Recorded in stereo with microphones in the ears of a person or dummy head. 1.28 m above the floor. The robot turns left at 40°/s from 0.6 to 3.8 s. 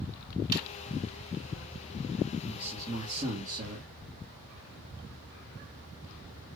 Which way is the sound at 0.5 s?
25° right (ahead or behind).